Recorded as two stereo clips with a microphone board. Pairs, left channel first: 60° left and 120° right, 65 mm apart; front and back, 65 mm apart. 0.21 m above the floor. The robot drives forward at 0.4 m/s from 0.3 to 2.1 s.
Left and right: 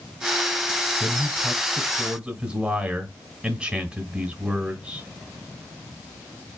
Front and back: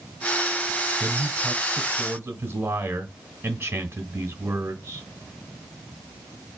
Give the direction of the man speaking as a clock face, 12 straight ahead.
6 o'clock.